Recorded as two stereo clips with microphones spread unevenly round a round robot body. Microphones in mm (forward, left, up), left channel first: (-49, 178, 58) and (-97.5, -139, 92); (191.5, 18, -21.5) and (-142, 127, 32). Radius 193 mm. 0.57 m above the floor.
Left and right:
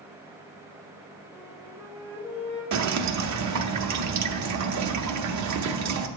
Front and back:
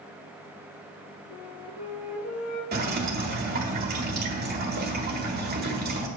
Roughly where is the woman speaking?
No woman speaking in this recording.